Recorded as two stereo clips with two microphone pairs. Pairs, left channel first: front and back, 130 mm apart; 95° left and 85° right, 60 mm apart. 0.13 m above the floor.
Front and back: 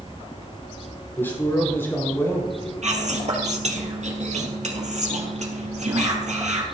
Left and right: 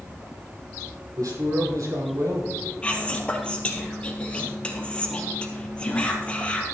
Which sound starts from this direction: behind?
Whispering, at 2.8 s.